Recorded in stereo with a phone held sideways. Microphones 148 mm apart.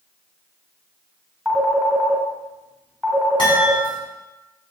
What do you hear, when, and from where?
1.4 s a phone ringing: centre (ahead or behind), 2.5 m
3.4 s a chime: 35° left (ahead or behind), 5 m